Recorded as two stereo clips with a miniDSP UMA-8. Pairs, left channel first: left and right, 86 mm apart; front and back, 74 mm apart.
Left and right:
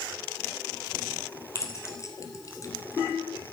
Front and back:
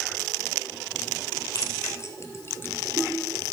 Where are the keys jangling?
40° left, 2 m; by 3.5 s 115° left, 0.8 m.